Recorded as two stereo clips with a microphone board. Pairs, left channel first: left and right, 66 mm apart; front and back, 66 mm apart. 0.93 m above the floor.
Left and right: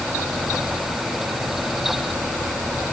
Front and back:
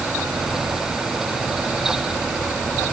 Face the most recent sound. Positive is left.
No sound to turn to.